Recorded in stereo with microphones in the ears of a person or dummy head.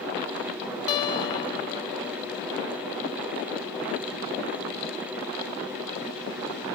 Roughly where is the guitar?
Left.